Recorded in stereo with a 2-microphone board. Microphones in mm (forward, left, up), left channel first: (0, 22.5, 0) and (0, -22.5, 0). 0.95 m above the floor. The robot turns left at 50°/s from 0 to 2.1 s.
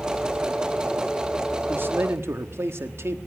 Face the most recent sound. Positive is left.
turn(degrees=-65)  # may be behind; listen again after turning